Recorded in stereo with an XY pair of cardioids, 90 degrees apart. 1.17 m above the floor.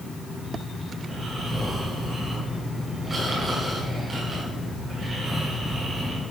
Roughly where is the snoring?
Ahead right.